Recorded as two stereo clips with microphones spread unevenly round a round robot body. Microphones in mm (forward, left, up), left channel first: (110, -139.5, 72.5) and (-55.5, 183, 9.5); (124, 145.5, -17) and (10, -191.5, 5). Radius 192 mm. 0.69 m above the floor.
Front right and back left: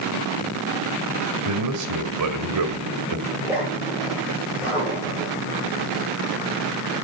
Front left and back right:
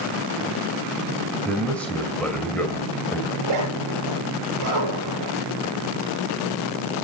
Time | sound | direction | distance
1.4 | a man speaking | 160° left | 2.5 m
3.3 | a zipper | 155° right | 6.5 m